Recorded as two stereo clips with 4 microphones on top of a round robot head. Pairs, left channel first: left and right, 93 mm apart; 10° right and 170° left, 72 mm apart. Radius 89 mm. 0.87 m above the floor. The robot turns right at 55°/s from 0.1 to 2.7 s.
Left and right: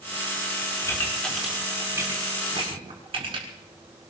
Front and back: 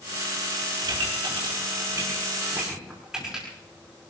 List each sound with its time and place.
0.8 s a pop: 150° left, 6 m; by 3.5 s 110° right, 6 m